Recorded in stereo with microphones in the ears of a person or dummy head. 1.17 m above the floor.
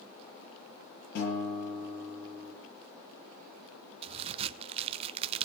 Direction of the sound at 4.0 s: 25° right (ahead or behind).